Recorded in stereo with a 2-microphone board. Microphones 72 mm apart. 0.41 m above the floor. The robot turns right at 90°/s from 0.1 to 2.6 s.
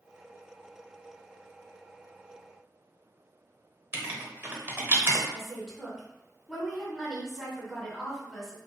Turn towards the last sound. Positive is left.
turn(degrees=-5)  # may be behind; listen again after turning